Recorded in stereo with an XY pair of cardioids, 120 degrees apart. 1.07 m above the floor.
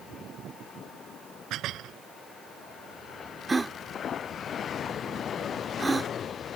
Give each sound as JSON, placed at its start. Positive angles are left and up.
{"t": 1.5, "sound": "dishes clattering", "azimuth_deg": -65}
{"t": 3.5, "sound": "a gasp", "azimuth_deg": -15}